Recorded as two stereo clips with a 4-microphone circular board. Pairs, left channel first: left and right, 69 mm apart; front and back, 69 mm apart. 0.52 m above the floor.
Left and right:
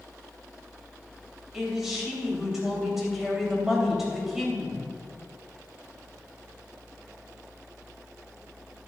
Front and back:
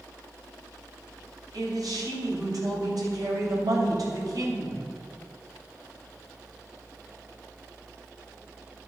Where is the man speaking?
175° right, 3 m.